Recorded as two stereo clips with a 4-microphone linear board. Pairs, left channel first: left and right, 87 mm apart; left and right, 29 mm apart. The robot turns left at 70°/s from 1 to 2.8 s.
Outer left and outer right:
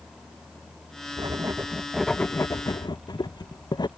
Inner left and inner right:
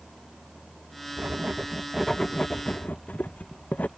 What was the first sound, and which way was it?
Writing, 125° right.